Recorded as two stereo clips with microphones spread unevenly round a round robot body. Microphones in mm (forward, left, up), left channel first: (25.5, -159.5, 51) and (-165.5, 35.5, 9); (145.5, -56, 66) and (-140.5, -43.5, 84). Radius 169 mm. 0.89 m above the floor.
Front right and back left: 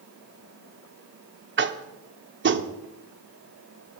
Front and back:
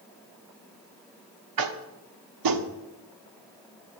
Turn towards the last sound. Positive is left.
turn(degrees=-175)